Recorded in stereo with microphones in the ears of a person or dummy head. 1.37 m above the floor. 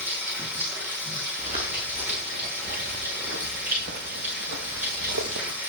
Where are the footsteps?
35° right (ahead or behind), 7 m; by 5.6 s 65° right (ahead or behind), 3.5 m.